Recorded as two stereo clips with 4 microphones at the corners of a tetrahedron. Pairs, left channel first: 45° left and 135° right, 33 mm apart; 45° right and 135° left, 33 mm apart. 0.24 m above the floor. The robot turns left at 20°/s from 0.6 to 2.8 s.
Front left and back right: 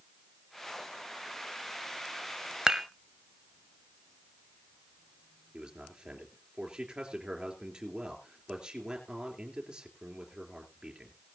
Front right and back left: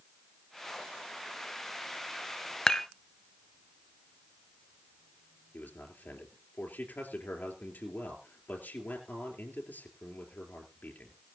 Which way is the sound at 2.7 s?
95° right.